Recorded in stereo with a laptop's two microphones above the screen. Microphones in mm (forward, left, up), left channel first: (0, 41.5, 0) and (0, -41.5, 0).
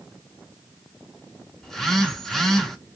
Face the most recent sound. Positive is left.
turn(degrees=5)  # may be behind; listen again after turning